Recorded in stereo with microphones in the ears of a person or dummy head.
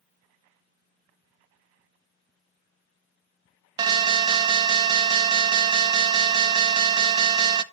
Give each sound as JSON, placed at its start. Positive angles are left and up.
{"t": 3.8, "sound": "an alarm", "side_deg": -25, "distance_m": 0.6}